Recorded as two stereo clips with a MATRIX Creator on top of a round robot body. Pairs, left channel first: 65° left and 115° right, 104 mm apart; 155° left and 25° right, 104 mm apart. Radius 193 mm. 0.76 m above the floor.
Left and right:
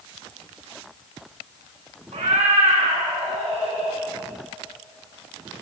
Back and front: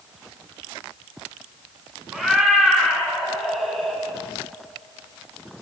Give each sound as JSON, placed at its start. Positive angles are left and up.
{"t": 2.1, "sound": "a cat meowing", "azimuth_deg": -110, "distance_m": 6.0}